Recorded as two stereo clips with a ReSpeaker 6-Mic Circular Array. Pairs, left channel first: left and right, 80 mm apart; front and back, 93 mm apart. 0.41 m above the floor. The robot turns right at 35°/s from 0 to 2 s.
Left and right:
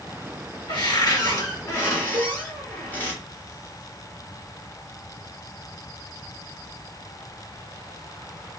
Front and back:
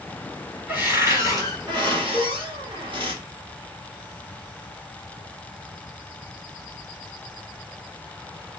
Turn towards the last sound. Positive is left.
turn(degrees=-110)